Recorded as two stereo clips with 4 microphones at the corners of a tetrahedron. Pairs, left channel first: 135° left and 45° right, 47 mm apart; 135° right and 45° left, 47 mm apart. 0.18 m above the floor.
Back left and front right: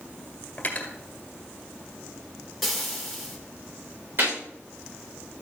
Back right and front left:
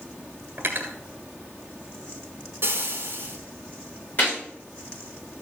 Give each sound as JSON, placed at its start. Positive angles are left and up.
{"t": 0.6, "sound": "cutlery clinking", "azimuth_deg": 80, "distance_m": 1.8}
{"t": 2.6, "sound": "frying", "azimuth_deg": 40, "distance_m": 2.5}
{"t": 4.2, "sound": "a gunshot", "azimuth_deg": -80, "distance_m": 6.5}